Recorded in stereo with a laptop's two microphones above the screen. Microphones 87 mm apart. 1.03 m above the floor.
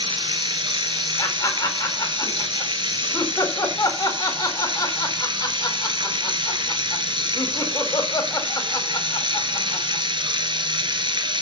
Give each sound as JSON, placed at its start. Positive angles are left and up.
{"t": 0.0, "sound": "running water", "side_deg": -60, "distance_m": 1.8}
{"t": 1.2, "sound": "laughter", "side_deg": 40, "distance_m": 4.0}